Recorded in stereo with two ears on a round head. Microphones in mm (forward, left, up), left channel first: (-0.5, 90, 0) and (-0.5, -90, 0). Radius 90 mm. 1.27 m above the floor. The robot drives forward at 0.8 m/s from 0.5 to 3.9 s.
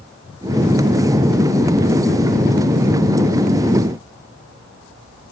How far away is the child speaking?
I don't hear a child speaking.